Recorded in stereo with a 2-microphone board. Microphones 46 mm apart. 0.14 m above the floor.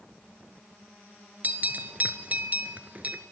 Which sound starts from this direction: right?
A bell, at 1.4 s.